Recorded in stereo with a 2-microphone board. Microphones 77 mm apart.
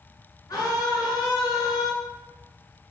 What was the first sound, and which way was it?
A scream, 50° left (ahead or behind).